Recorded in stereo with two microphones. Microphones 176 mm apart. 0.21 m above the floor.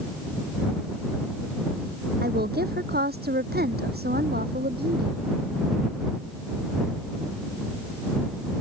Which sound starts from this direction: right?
A woman speaking, at 2.2 s.